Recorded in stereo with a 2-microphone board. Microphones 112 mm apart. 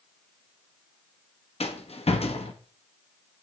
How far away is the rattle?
About 1.0 m.